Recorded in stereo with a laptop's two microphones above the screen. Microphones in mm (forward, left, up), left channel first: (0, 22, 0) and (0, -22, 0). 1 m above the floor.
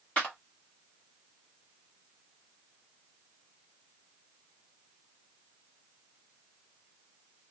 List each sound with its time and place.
0.2 s a clap: 30° left (ahead or behind), 1.6 m